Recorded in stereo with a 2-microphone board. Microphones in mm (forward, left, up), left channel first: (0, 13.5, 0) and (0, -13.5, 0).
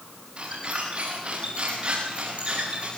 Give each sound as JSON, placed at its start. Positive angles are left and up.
{"t": 0.4, "sound": "a squeak", "side_deg": -45, "distance_m": 8.5}